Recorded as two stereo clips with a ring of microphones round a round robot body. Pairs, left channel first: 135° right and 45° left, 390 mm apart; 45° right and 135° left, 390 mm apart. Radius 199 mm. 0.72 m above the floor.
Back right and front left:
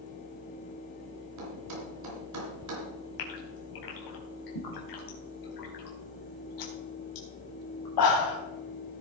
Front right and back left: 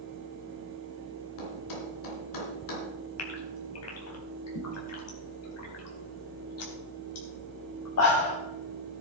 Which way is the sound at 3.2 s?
100° right.